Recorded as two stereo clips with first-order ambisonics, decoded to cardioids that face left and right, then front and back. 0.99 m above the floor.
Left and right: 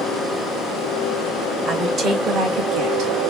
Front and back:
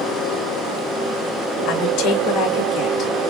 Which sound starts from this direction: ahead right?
A woman speaking, at 1.6 s.